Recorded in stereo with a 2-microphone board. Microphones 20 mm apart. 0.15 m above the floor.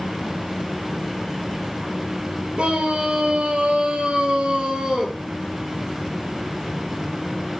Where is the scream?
70° right (ahead or behind), 4 m; by 5.2 s 35° right (ahead or behind), 3 m.